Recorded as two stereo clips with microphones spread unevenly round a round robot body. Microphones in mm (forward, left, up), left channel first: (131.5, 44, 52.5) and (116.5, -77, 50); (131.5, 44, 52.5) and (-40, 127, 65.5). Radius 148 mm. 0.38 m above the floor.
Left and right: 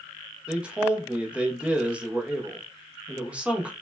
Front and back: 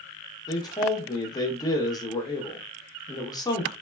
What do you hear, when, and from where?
0.5 s a man speaking: 30° right, 0.8 m